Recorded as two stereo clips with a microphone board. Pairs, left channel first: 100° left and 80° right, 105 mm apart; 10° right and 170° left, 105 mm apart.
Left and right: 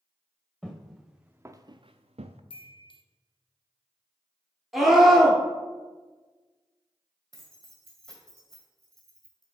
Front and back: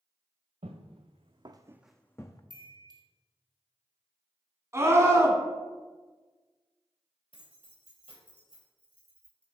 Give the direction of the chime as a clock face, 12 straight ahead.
8 o'clock.